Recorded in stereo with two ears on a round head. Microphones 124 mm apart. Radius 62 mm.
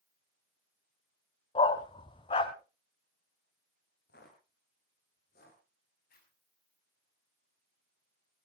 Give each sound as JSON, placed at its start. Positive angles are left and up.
{"t": 1.6, "sound": "a dog barking", "side_deg": 35, "distance_m": 1.2}
{"t": 4.1, "sound": "footsteps", "side_deg": 80, "distance_m": 5.5}
{"t": 6.1, "sound": "a zipper", "side_deg": 75, "distance_m": 6.0}